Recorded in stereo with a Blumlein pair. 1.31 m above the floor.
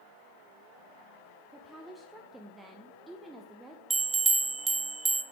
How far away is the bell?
About 0.9 m.